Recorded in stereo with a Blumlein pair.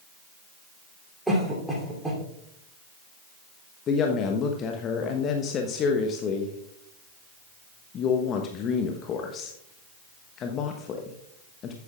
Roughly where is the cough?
Ahead.